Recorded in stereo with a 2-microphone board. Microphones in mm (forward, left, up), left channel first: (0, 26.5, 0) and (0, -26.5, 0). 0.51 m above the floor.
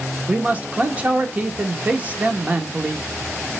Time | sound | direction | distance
0.3 | a man speaking | 25° right (ahead or behind) | 1.2 m